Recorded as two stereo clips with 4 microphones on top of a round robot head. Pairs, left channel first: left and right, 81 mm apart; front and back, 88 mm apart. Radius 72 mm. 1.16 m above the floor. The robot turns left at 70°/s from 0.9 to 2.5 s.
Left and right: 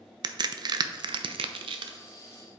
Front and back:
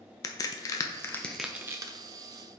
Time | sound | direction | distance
0.2 | a crack | 55° right | 0.5 m